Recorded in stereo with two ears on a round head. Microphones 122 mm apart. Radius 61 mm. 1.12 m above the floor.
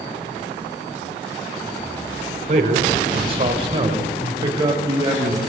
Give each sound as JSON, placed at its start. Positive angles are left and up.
{"t": 2.5, "sound": "a man speaking", "side_deg": -50, "distance_m": 4.5}